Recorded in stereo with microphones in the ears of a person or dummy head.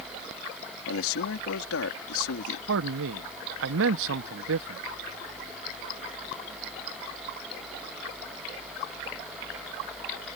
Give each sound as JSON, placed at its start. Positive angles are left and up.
{"t": 0.9, "sound": "a man speaking", "side_deg": 75}
{"t": 2.7, "sound": "a man speaking", "side_deg": -70}